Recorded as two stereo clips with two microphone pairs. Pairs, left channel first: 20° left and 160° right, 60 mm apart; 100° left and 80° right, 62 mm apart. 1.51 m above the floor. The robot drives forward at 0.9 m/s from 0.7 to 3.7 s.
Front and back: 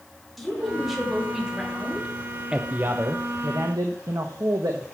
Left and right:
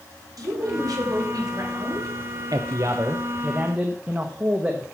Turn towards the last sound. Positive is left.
turn(degrees=-145)